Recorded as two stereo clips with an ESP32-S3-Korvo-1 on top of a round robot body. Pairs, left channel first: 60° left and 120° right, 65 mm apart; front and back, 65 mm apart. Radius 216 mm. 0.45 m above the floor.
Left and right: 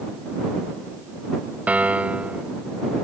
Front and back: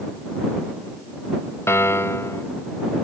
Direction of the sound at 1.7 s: 50° right.